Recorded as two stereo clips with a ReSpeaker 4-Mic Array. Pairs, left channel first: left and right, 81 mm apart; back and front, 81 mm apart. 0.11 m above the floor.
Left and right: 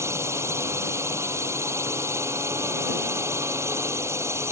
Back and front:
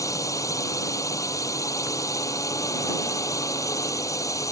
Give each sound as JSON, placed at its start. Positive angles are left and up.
{"t": 0.0, "sound": "a drone", "azimuth_deg": -140}